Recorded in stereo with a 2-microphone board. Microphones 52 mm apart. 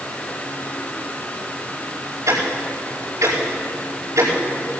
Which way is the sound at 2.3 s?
65° right (ahead or behind).